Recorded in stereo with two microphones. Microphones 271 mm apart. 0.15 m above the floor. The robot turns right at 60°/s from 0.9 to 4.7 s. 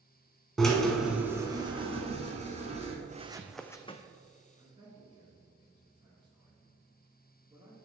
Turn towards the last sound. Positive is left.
turn(degrees=-15)  # may be behind; listen again after turning